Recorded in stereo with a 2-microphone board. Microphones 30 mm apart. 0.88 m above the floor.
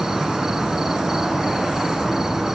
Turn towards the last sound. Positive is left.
turn(degrees=-10)  # may be behind; listen again after turning